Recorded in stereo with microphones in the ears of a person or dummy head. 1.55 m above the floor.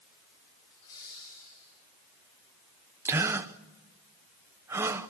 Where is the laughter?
75° left (ahead or behind), 4 m; by 1.7 s 65° left (ahead or behind), 4 m.